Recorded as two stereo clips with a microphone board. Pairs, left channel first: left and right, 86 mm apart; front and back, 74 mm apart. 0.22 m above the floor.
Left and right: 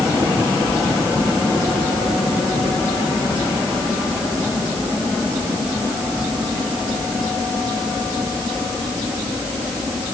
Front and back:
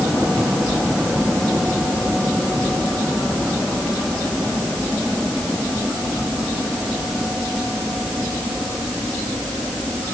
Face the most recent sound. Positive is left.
No sound to turn to.